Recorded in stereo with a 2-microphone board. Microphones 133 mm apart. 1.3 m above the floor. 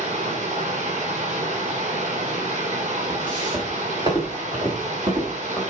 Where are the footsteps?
35° right (ahead or behind), 6.5 m; by 5.6 s 30° right (ahead or behind), 4.5 m.